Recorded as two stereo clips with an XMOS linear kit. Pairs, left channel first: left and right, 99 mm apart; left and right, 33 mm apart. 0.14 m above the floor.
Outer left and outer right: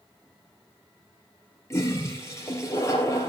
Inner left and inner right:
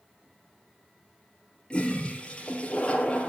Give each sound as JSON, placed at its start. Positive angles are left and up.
{"t": 1.7, "sound": "a toilet flushing", "side_deg": 30, "distance_m": 3.5}